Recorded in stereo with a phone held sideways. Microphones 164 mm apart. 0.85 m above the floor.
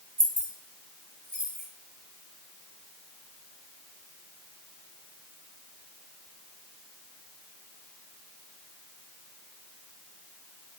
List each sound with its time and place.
0.2 s keys jangling: 55° right (ahead or behind), 1.0 m; by 1.6 s 60° right (ahead or behind), 2 m